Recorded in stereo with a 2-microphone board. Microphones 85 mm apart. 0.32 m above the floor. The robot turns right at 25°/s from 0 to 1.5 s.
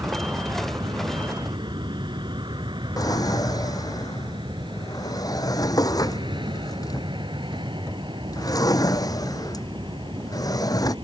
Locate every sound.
0.0 s an aircraft: 40° right (ahead or behind); by 11.1 s 80° right
3.0 s a drawer: 50° left (ahead or behind)